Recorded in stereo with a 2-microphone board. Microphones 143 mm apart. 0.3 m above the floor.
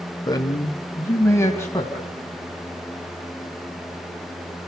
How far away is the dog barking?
I don't hear a dog barking.